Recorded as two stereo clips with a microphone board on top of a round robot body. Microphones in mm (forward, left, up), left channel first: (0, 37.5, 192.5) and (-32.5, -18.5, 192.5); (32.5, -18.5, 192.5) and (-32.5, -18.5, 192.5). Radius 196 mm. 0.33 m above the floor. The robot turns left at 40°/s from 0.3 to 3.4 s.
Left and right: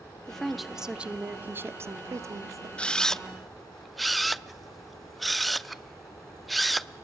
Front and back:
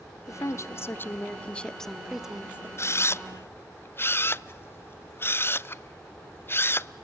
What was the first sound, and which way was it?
A woman speaking, 20° right.